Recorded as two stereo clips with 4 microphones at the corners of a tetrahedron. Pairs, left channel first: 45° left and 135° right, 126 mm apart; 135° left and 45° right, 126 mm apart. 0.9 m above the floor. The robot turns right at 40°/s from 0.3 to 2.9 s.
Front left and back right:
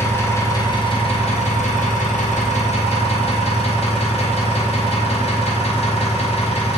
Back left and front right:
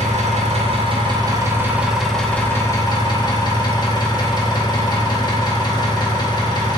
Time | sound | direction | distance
0.0 | an engine running | 25° right | 0.8 m